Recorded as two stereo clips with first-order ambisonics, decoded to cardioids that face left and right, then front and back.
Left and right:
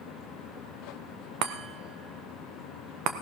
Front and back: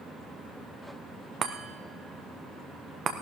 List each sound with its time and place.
1.4 s a chime: 120° right, 1.6 m